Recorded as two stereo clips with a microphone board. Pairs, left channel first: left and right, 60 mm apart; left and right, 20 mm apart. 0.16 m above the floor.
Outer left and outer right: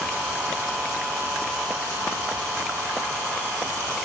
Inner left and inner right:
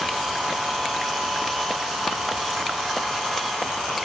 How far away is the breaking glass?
I don't hear breaking glass.